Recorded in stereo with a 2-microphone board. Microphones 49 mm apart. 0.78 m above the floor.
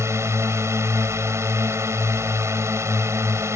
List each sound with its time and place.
0.0 s a drone: 75° right (ahead or behind)